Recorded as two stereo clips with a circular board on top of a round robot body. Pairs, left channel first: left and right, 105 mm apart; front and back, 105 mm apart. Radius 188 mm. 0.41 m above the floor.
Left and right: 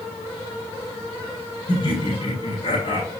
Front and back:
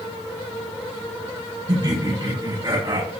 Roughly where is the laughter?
Behind left.